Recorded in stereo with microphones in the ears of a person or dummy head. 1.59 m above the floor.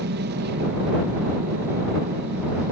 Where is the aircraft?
55° right (ahead or behind).